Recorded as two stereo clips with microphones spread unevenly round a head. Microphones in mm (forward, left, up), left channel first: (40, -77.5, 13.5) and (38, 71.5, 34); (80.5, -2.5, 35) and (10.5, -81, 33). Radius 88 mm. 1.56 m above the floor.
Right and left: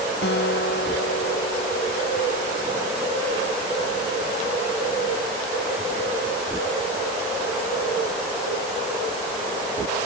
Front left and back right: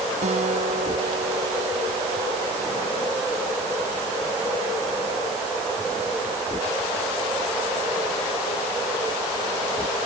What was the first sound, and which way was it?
A guitar, 125° right.